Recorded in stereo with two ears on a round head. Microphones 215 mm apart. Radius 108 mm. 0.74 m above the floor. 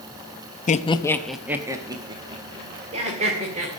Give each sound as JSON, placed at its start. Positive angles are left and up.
{"t": 0.7, "sound": "laughter", "side_deg": 35, "distance_m": 0.6}